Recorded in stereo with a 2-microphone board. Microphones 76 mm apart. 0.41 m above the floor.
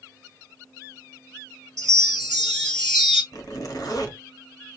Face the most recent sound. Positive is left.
turn(degrees=55)  # may be behind; listen again after turning